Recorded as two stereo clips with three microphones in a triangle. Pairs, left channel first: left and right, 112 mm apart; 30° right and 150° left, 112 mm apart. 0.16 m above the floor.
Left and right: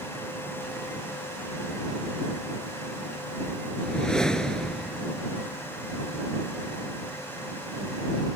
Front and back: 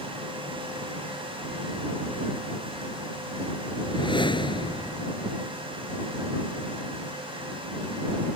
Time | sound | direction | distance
3.8 | a whoosh | 5° left | ?